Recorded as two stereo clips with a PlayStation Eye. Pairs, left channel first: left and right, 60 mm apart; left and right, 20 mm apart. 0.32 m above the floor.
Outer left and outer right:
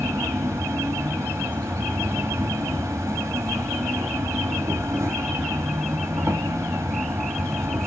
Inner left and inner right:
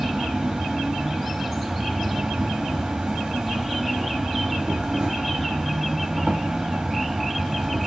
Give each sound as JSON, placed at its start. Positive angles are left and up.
{"t": 0.0, "sound": "an insect", "side_deg": -55, "distance_m": 1.7}